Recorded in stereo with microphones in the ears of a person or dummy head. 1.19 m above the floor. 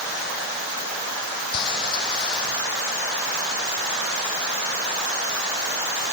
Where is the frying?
25° left (ahead or behind).